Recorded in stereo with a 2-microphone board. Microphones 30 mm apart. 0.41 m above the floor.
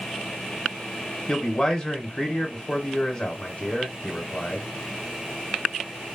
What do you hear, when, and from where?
1.3 s a man speaking: 35° left (ahead or behind), 1.0 m